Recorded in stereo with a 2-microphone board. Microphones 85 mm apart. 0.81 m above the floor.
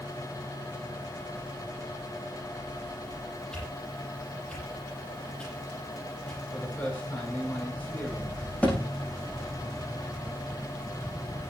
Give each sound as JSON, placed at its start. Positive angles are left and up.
{"t": 3.5, "sound": "a whoosh", "side_deg": 10, "distance_m": 10.0}
{"t": 6.5, "sound": "a man speaking", "side_deg": 20, "distance_m": 9.0}
{"t": 8.6, "sound": "a thud", "side_deg": 15, "distance_m": 6.5}